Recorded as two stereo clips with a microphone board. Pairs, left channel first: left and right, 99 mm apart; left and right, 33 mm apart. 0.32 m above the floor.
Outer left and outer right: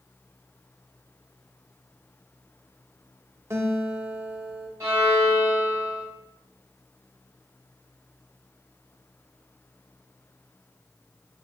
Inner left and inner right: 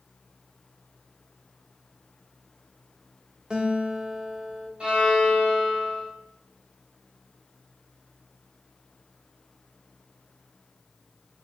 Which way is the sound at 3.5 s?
25° right (ahead or behind).